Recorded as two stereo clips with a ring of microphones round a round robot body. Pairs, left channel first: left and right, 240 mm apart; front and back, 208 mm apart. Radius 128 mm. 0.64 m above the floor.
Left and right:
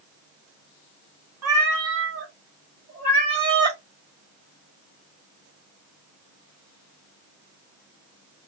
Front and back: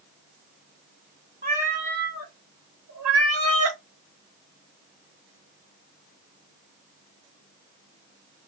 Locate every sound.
1.4 s a cat meowing: 115° right, 1.6 m; by 3.8 s 165° right, 1.4 m